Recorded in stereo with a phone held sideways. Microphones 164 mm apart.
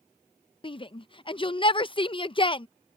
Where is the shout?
30° left (ahead or behind).